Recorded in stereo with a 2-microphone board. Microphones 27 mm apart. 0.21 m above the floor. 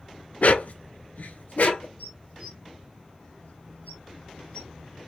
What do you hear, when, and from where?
0.4 s a dog barking: 65° left (ahead or behind), 0.5 m; by 1.9 s 75° left (ahead or behind), 1.2 m
2.0 s dishes clattering: 70° left (ahead or behind), 4 m